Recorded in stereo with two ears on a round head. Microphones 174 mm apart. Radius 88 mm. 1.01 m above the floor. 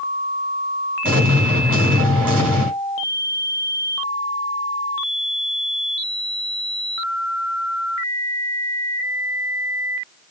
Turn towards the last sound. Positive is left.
turn(degrees=-45)  # may be behind; listen again after turning